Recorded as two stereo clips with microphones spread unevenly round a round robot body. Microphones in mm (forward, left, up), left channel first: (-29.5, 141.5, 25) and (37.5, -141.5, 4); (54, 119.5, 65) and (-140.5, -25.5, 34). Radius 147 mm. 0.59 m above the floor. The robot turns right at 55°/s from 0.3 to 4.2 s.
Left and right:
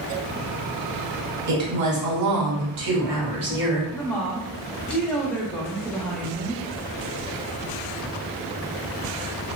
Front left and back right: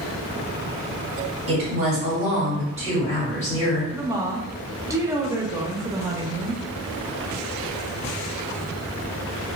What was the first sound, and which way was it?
A woman speaking, 125° right.